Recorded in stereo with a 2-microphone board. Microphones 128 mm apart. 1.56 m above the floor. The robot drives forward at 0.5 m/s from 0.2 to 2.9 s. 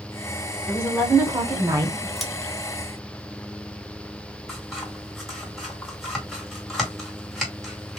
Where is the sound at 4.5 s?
Centre (ahead or behind), 2 m.